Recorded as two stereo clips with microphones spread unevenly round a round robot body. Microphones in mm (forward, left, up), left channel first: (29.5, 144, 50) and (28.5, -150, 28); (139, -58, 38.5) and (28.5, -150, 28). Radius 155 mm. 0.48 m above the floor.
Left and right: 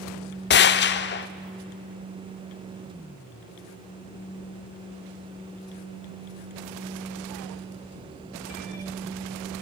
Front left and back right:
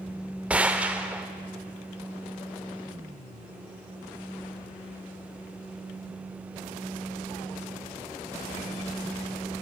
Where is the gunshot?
140° left, 0.8 m.